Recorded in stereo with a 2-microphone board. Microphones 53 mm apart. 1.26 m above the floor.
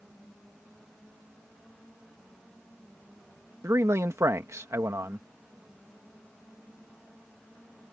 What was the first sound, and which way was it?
A man speaking, 80° right.